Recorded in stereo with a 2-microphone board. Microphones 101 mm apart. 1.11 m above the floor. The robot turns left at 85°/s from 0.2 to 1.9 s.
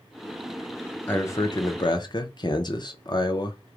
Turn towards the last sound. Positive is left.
turn(degrees=85)